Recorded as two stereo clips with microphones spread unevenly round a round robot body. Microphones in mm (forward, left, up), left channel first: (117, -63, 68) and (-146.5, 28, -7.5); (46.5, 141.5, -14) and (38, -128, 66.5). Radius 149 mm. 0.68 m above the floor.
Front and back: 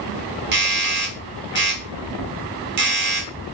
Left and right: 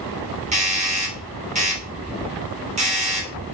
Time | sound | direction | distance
0.5 | a doorbell | 165° right | 3 m